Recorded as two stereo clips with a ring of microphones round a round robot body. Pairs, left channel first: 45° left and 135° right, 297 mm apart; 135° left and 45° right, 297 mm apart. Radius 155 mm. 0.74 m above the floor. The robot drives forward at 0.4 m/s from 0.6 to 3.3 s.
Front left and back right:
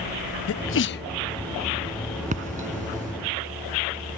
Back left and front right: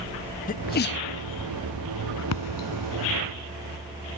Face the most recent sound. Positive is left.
turn(degrees=160)